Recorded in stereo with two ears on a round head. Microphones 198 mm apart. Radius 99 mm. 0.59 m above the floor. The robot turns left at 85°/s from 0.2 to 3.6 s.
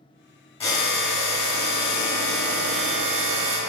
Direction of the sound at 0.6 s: 150° left.